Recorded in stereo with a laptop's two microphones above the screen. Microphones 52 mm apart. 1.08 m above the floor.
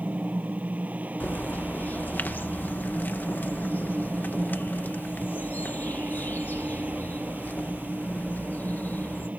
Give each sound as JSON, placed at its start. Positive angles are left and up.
{"t": 0.0, "sound": "a fan", "side_deg": -30}
{"t": 1.2, "sound": "a bird", "side_deg": 40}